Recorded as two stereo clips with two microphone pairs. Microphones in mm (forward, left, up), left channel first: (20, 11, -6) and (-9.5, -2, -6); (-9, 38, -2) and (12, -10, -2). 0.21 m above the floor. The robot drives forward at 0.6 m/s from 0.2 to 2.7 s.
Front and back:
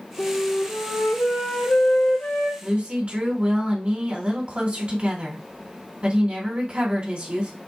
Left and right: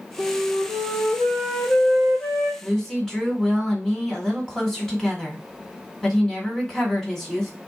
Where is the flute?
30° left, 3.5 m; by 2.5 s 50° left, 2.5 m.